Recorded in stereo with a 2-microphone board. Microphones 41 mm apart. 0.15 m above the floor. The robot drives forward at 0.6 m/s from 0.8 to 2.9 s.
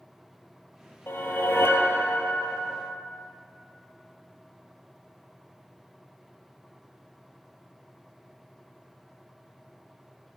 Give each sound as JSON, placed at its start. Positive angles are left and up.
{"t": 1.1, "sound": "a whoosh", "side_deg": 65, "distance_m": 1.3}